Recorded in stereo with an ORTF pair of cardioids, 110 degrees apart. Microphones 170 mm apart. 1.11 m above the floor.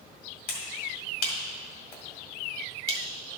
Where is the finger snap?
70° left, 2 m.